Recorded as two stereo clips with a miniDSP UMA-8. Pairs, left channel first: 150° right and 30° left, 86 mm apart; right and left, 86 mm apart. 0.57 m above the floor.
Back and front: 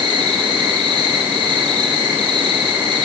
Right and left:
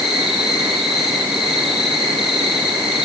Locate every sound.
0.0 s an insect: 5° left, 5.5 m